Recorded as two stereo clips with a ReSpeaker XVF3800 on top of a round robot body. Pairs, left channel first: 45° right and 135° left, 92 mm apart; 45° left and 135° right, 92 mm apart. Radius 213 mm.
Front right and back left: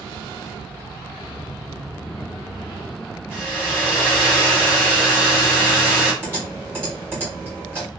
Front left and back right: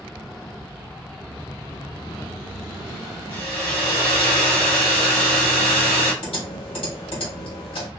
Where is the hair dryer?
60° left, 1.4 m.